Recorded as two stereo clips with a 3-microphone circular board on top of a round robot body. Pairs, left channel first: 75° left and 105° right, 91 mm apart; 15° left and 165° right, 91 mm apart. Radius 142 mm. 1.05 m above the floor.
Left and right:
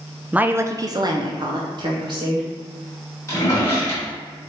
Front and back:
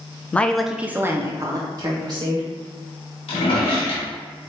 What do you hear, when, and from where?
0.3 s a woman speaking: 40° right, 0.5 m; by 2.5 s 130° right, 1.2 m
3.3 s a drawer: 15° left, 1.5 m